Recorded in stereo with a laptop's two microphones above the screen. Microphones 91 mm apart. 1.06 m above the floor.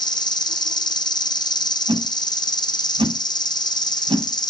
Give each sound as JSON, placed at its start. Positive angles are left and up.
{"t": 0.0, "sound": "an insect", "side_deg": 55, "distance_m": 0.9}
{"t": 1.9, "sound": "a whoosh", "side_deg": -75, "distance_m": 5.0}